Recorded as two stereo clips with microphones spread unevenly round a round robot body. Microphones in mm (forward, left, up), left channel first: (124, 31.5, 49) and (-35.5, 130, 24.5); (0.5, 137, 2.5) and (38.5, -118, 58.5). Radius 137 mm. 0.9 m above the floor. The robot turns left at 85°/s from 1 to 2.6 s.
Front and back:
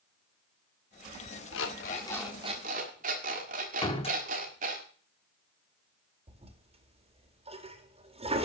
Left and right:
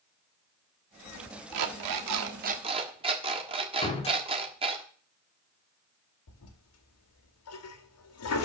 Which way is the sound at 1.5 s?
60° right.